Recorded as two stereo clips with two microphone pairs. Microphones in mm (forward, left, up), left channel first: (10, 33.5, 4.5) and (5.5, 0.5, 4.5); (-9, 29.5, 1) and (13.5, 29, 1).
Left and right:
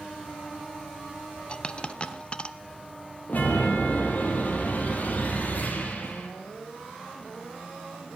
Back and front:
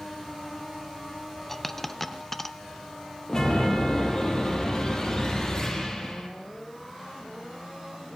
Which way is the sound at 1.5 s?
110° left.